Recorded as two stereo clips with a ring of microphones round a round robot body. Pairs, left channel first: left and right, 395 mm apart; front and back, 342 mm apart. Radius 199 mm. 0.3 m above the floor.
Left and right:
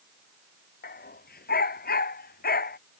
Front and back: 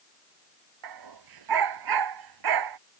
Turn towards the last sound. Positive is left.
turn(degrees=160)